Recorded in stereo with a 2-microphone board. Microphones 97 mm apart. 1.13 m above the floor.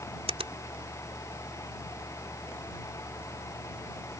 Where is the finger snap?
80° right.